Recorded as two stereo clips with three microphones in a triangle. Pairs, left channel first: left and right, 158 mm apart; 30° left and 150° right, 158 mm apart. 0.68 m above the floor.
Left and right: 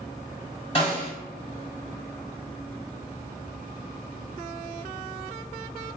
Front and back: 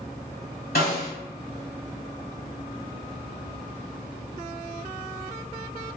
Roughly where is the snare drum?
Ahead left.